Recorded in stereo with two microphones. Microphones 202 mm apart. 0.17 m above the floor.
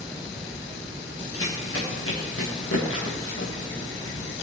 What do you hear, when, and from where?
1.3 s running footsteps: 85° left, 4 m; by 4.3 s 75° left (ahead or behind), 5 m